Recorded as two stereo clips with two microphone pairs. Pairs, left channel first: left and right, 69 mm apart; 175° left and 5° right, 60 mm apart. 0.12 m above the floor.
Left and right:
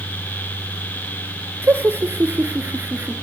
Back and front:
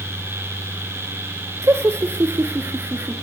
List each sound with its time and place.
1.6 s laughter: 35° right, 2.5 m; by 3.1 s 40° right, 1.8 m